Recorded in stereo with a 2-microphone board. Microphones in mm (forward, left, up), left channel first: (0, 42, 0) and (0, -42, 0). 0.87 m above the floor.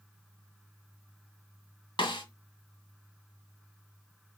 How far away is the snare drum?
About 2 m.